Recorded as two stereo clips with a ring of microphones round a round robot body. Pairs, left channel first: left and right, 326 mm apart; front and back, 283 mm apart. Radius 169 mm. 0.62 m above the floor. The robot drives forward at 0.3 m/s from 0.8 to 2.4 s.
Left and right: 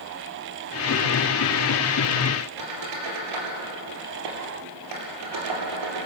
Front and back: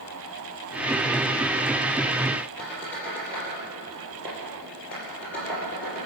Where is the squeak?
85° right, 4 m.